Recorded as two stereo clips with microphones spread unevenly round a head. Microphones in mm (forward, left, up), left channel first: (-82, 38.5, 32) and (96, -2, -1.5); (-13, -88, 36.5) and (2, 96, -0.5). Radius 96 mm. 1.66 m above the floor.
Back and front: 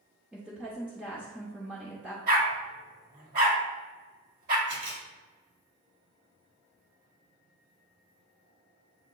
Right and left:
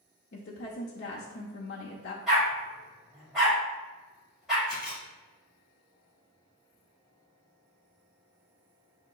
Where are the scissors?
No scissors in this recording.